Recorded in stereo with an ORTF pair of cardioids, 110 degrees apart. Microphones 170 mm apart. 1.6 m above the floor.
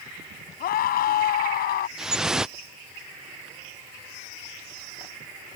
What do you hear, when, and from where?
0.6 s a scream: 65° left
2.0 s dripping: 5° right